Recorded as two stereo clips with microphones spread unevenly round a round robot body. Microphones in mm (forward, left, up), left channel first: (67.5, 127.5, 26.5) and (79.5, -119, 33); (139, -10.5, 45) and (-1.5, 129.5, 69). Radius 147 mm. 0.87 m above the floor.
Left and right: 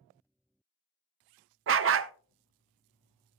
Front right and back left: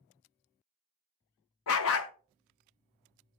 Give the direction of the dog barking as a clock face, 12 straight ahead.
2 o'clock.